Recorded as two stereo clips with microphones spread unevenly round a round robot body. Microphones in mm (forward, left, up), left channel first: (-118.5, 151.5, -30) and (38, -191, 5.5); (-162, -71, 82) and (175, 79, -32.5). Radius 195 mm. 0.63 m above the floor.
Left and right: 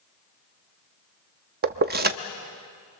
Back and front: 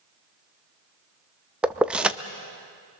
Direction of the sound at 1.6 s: 20° right.